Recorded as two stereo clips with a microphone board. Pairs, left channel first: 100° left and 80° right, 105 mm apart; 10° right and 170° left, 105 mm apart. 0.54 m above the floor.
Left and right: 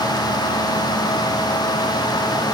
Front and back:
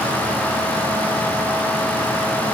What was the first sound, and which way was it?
Only background noise.